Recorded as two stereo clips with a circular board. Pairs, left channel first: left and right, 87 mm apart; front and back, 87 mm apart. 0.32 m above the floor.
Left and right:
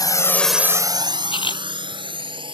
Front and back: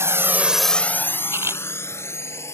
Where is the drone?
125° left; by 2.5 s 60° right.